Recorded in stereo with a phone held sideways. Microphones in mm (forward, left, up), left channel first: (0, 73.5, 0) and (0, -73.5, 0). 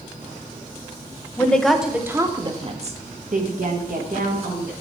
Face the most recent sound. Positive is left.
turn(degrees=-80)